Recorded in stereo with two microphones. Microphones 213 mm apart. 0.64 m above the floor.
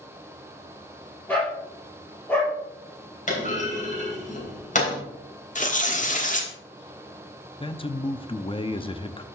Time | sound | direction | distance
1.3 | a dog barking | 10° left (ahead or behind) | 4 m
3.3 | a clunk | 35° left (ahead or behind) | 3 m
5.5 | tearing paper | 35° left (ahead or behind) | 1.3 m
7.6 | a man speaking | 25° left (ahead or behind) | 0.6 m